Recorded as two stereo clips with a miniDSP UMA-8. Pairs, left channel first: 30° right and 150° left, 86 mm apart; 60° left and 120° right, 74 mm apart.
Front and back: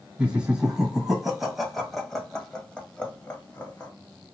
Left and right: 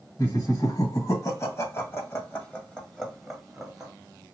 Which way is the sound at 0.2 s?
75° left.